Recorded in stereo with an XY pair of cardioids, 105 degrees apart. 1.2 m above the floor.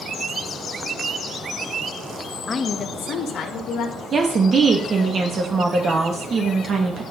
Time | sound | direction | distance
2.5 | a woman speaking | 30° left | 0.8 m
4.1 | a woman speaking | 45° right | 1.4 m